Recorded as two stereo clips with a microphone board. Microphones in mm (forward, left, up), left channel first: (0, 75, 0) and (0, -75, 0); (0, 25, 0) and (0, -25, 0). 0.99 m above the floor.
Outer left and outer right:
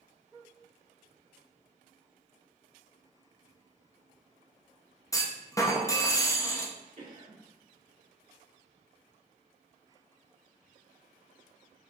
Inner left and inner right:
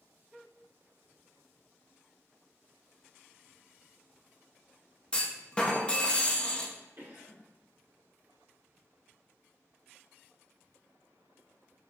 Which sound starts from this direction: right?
A cough, at 7.0 s.